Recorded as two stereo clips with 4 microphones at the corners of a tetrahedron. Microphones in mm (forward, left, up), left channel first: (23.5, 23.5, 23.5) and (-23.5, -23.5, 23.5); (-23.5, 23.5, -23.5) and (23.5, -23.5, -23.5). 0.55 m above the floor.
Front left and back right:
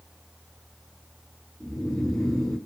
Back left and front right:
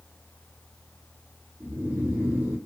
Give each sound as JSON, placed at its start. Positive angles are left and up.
{"t": 1.6, "sound": "snoring", "azimuth_deg": -30, "distance_m": 1.3}